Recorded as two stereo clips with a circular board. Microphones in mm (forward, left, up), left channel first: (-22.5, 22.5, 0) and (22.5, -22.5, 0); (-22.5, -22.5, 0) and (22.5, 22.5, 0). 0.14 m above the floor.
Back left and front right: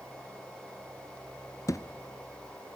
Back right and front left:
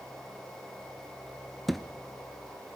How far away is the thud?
About 1.1 m.